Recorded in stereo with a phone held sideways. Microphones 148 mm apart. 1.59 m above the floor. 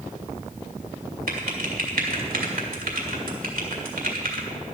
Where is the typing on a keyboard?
80° right, 2.0 m.